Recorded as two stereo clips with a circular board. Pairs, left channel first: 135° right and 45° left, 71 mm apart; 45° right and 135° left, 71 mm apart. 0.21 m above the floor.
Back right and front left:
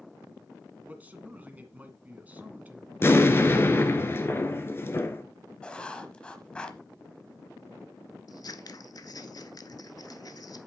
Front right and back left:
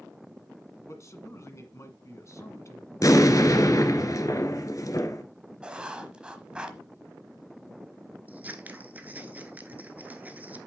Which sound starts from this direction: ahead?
A man speaking, at 0.8 s.